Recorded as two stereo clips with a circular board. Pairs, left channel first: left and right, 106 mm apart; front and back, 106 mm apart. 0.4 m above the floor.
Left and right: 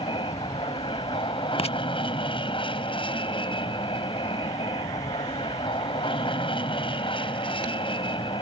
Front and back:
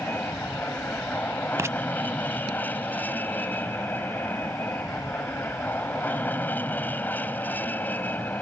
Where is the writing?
115° left.